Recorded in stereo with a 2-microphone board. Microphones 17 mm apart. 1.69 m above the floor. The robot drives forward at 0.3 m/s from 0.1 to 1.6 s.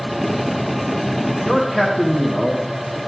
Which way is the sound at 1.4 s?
30° right (ahead or behind).